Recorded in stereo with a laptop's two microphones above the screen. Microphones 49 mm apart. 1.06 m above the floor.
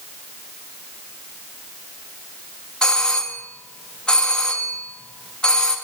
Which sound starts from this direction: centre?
A doorbell, at 2.8 s.